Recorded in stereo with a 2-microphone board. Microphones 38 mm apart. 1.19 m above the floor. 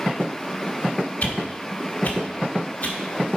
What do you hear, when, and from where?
1.2 s a whoosh: 45° left (ahead or behind), 1.3 m